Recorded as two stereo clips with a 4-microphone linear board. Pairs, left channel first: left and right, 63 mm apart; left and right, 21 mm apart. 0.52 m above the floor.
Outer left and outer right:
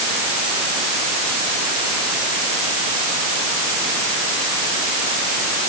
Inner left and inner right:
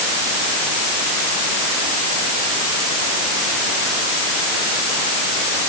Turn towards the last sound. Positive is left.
No sound to turn to.